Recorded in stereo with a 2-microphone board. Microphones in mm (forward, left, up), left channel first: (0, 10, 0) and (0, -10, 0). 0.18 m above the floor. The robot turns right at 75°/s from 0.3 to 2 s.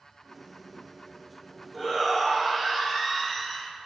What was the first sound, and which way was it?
A shout, 10° left (ahead or behind).